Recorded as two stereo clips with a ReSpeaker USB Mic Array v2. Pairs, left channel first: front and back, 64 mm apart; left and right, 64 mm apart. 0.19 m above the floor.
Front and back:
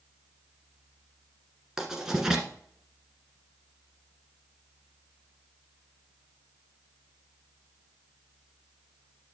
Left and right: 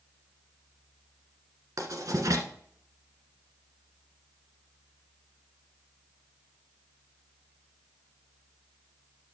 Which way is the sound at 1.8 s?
100° right.